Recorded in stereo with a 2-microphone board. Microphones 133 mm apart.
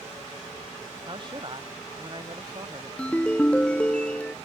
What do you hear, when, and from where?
1.1 s a man speaking: 35° right (ahead or behind)
3.0 s a ringtone: 10° left (ahead or behind)